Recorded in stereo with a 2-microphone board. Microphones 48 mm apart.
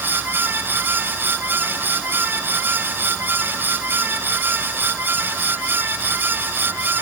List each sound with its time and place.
Only background noise.